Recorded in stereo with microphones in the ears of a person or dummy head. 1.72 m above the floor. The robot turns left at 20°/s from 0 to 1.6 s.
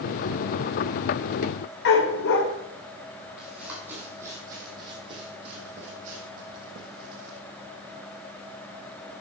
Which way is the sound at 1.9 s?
60° left (ahead or behind).